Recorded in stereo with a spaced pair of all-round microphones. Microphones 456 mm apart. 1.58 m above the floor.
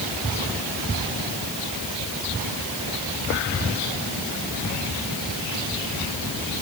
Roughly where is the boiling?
No boiling in this recording.